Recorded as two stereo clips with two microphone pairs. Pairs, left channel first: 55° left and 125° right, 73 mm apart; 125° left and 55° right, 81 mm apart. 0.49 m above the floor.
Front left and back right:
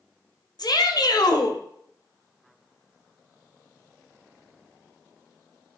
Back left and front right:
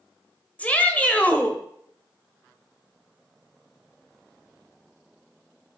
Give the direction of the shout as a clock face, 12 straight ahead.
10 o'clock.